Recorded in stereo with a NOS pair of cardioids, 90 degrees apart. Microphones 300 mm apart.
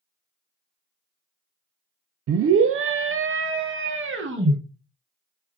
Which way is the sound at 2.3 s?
50° right.